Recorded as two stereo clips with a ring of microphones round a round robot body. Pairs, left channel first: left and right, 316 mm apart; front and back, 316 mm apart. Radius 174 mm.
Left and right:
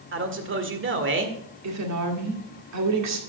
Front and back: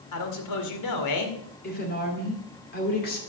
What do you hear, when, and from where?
0.1 s a man speaking: 35° right, 1.8 m
1.6 s a woman speaking: 60° right, 2 m